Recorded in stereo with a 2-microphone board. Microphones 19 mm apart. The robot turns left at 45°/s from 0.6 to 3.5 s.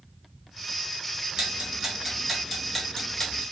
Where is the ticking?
50° right (ahead or behind), 1.3 m; by 3.4 s 45° left (ahead or behind), 1.3 m.